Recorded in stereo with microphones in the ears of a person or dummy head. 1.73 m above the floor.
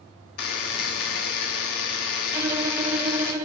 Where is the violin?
20° right (ahead or behind), 0.6 m.